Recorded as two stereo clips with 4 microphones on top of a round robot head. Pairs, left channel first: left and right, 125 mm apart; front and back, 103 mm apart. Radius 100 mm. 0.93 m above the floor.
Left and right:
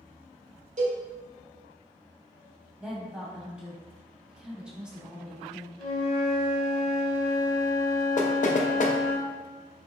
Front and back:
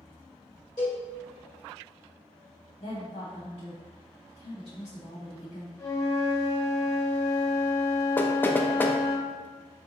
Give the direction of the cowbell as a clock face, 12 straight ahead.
2 o'clock.